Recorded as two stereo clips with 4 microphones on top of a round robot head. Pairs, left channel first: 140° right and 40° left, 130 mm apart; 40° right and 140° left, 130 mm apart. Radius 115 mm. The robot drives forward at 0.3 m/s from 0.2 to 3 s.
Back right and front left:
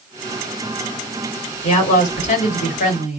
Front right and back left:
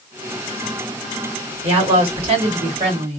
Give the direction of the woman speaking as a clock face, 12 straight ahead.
6 o'clock.